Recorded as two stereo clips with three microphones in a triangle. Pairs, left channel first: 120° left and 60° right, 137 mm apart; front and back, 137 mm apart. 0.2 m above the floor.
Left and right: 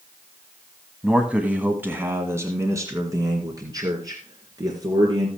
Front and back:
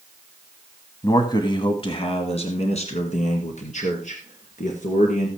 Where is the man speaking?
20° left, 1.3 m; by 5.3 s straight ahead, 3 m.